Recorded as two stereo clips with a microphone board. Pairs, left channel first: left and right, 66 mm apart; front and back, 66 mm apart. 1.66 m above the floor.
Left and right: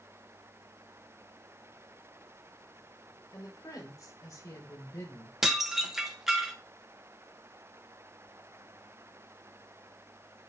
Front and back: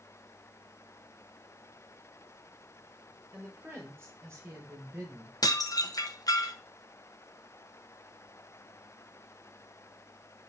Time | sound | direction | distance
3.3 | a woman speaking | 125° left | 5.5 m
5.4 | dishes clattering | 5° right | 1.2 m